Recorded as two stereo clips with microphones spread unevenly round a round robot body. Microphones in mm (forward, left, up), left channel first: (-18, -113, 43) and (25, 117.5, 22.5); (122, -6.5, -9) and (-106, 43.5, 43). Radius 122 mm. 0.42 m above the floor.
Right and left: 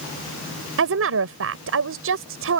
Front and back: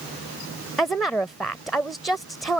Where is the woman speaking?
70° left.